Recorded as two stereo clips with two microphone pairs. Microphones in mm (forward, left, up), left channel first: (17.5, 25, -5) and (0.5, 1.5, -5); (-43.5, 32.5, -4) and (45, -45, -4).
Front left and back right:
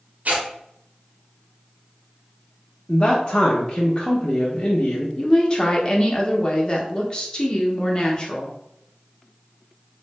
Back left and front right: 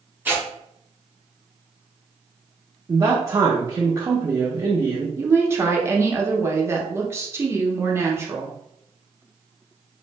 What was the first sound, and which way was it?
Tearing paper, 110° right.